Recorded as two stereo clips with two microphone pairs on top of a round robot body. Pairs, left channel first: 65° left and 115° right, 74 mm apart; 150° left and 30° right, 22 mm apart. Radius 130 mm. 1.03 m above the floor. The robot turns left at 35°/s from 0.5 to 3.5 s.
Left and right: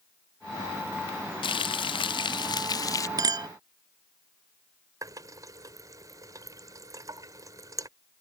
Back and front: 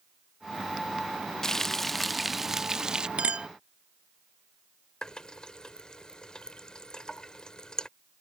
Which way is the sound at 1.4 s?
75° left.